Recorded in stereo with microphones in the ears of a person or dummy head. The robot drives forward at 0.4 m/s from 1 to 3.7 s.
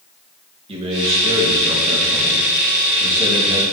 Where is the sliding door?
I don't hear a sliding door.